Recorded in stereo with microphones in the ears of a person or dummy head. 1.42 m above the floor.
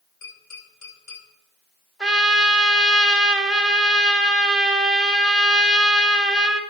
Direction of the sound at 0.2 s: 70° left (ahead or behind).